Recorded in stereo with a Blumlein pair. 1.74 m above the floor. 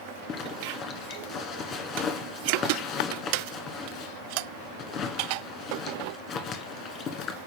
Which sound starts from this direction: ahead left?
A zipper, at 0.3 s.